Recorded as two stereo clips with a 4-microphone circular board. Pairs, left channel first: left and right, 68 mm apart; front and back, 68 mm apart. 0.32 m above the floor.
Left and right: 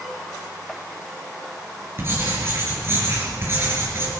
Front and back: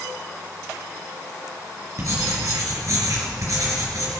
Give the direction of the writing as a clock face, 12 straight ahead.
5 o'clock.